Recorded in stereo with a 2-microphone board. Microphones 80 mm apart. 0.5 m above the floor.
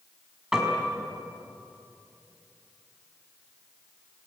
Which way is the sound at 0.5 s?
10° right (ahead or behind).